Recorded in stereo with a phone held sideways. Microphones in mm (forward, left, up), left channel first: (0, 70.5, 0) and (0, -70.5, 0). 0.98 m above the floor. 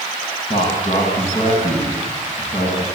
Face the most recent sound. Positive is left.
turn(degrees=50)  # may be behind; listen again after turning